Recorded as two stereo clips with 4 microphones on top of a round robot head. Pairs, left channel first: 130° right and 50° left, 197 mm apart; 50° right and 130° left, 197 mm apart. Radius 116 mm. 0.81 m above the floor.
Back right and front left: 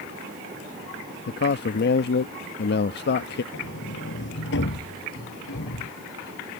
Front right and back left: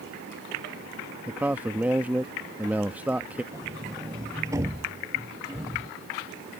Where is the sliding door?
160° right.